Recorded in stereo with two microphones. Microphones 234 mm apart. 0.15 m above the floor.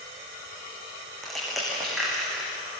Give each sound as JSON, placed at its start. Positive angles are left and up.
{"t": 1.2, "sound": "crushing", "side_deg": 0, "distance_m": 9.5}